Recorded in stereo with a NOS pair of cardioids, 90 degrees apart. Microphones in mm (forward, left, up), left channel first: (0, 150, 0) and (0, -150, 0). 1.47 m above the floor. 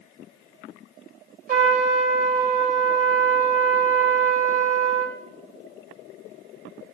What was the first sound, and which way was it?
A trumpet, 30° right.